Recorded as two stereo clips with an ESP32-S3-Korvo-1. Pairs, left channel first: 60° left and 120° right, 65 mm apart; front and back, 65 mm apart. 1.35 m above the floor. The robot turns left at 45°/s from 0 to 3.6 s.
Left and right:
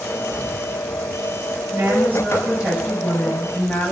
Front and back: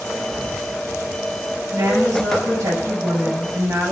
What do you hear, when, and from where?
1.7 s a woman speaking: 155° right, 8 m; by 3.9 s 120° left, 8 m